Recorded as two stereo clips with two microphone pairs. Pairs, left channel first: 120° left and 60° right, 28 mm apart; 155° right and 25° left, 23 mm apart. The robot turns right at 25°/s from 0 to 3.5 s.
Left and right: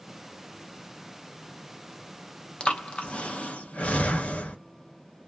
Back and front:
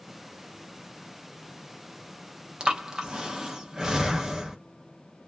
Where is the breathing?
75° left, 0.6 m; by 4.6 s 95° left, 0.6 m.